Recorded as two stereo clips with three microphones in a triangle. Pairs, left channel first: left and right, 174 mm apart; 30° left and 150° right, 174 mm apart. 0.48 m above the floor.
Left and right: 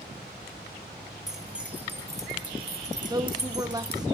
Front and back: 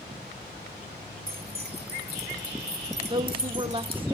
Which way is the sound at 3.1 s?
135° right.